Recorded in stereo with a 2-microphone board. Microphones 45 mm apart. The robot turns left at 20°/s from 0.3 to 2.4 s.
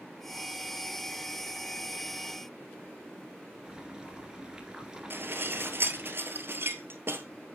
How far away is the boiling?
About 1.8 m.